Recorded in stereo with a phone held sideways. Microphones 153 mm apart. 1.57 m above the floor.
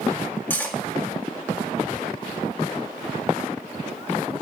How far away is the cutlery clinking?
About 2 m.